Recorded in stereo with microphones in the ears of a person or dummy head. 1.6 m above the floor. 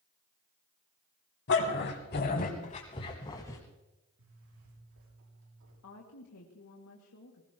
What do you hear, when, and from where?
1.5 s a dog barking: 65° left (ahead or behind), 3 m; by 3.6 s 20° left (ahead or behind), 3.5 m
4.2 s a zipper: 80° right, 7 m
5.8 s a woman speaking: 80° left, 2.5 m